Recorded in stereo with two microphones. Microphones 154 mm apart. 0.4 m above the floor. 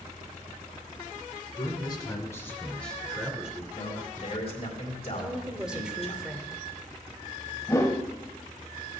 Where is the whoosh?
20° left (ahead or behind), 0.8 m.